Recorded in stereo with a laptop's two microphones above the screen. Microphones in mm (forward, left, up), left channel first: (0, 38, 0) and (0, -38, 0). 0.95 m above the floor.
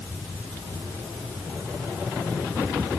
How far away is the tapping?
No tapping in this recording.